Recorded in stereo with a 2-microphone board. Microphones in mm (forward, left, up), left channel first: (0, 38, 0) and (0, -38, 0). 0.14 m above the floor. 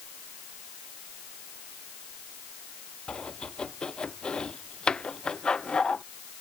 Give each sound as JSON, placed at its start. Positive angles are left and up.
{"t": 3.1, "sound": "chopping", "side_deg": 10}